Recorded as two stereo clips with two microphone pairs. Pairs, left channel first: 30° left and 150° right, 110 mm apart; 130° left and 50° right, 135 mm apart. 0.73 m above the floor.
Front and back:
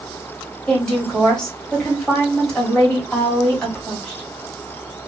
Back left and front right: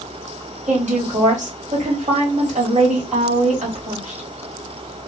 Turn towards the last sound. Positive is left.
turn(degrees=-55)